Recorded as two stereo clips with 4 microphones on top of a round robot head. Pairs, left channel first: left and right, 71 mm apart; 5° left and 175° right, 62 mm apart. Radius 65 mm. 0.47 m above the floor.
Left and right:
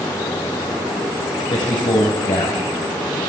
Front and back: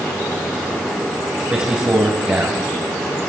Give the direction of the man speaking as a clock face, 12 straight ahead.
8 o'clock.